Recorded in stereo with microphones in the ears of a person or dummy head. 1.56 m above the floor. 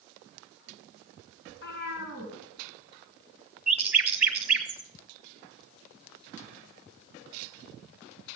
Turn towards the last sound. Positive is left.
turn(degrees=-10)  # may be behind; listen again after turning